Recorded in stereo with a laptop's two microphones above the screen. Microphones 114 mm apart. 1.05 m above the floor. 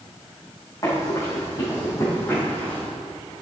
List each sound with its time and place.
0.8 s running footsteps: 30° left (ahead or behind), 3.5 m; by 2.9 s 15° left (ahead or behind), 3 m